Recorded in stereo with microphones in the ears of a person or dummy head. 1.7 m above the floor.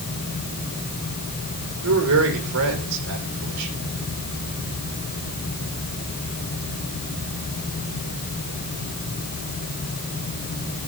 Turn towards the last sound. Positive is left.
turn(degrees=-85)